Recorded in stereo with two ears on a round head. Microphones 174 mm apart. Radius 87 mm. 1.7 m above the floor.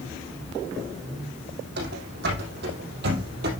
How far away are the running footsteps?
About 5.5 m.